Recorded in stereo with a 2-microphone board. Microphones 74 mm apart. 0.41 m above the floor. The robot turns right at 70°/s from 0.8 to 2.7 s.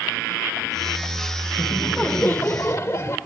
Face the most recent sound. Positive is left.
turn(degrees=75)